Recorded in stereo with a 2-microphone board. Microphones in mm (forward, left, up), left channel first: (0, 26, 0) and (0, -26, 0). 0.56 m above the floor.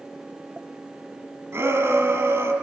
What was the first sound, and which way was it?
A shout, 60° right (ahead or behind).